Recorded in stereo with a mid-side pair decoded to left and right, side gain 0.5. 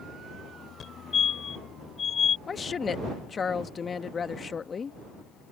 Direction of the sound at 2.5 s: 35° left.